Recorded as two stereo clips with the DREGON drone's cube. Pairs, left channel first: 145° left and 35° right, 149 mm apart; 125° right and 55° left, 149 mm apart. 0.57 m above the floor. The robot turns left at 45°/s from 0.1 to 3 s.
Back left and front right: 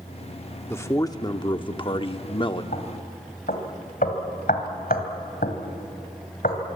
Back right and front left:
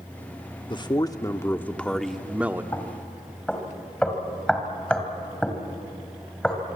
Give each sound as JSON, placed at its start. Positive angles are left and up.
{"t": 0.7, "sound": "a man speaking", "azimuth_deg": -150, "distance_m": 0.9}
{"t": 2.7, "sound": "knocking", "azimuth_deg": 165, "distance_m": 2.5}